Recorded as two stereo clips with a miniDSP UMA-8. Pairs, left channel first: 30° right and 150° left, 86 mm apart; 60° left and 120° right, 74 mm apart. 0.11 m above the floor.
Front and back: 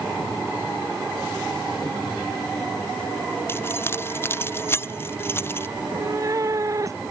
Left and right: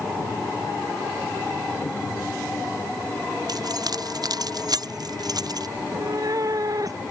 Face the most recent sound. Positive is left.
turn(degrees=-160)